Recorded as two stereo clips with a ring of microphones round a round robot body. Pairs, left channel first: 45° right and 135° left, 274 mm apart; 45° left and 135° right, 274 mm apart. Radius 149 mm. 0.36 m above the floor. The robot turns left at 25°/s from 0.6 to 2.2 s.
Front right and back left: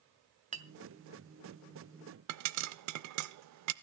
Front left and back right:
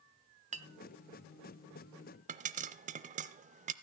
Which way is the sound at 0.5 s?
Straight behind.